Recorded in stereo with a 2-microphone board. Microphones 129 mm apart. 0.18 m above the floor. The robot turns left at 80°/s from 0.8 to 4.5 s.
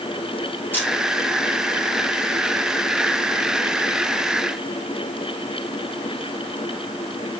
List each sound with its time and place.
0.7 s a camera shutter: 15° left (ahead or behind), 3 m; by 0.9 s 5° left (ahead or behind), 3 m